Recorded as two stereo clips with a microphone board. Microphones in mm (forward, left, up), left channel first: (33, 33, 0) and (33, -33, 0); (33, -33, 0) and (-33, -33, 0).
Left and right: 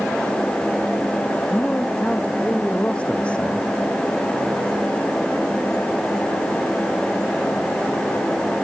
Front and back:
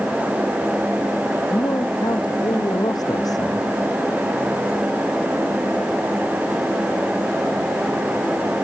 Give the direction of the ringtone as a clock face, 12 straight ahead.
No ringtone in this recording.